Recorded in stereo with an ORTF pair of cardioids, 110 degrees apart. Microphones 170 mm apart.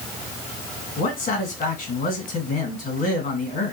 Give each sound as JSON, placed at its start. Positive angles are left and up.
{"t": 1.0, "sound": "a man speaking", "azimuth_deg": 55, "distance_m": 2.0}